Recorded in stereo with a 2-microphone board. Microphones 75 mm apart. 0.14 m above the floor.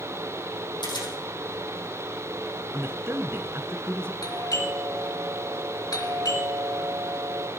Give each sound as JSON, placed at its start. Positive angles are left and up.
{"t": 0.8, "sound": "a camera shutter", "side_deg": 75, "distance_m": 4.0}
{"t": 2.7, "sound": "a man speaking", "side_deg": -35, "distance_m": 1.5}
{"t": 4.2, "sound": "a doorbell", "side_deg": 55, "distance_m": 3.5}